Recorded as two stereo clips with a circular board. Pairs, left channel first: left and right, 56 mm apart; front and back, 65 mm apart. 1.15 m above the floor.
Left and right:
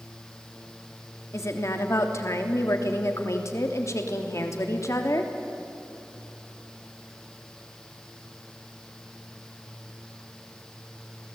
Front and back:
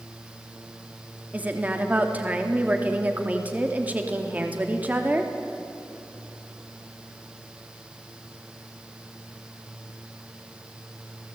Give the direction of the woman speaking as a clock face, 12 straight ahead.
8 o'clock.